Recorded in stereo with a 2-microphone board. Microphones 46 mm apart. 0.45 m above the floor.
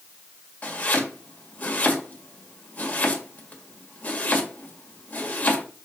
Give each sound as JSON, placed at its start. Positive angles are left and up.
{"t": 0.6, "sound": "chopping", "side_deg": 35, "distance_m": 1.8}